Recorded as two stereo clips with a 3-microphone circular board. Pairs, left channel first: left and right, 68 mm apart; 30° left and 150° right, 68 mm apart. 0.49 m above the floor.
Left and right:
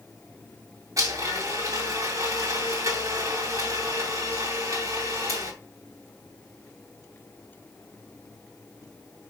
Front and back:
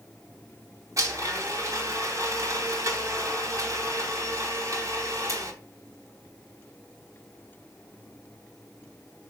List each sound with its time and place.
1.0 s a blender: 120° right, 2.5 m